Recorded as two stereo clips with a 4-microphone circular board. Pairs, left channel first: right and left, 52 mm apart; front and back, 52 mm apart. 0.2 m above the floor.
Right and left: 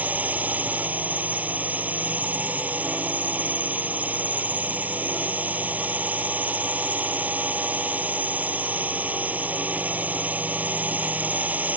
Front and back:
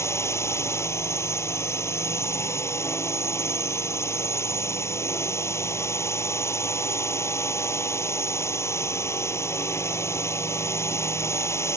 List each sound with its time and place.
0.0 s a drone: 30° left